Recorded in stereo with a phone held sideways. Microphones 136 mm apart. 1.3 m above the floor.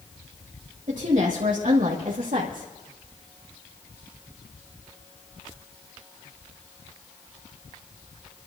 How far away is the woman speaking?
About 2.5 m.